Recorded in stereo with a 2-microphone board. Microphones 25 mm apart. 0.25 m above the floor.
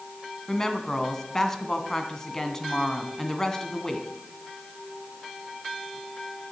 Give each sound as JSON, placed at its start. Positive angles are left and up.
{"t": 0.5, "sound": "a woman speaking", "side_deg": 20, "distance_m": 1.9}